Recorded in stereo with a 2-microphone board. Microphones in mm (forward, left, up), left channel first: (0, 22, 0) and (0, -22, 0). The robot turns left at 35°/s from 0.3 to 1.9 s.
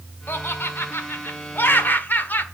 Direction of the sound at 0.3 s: 110° left.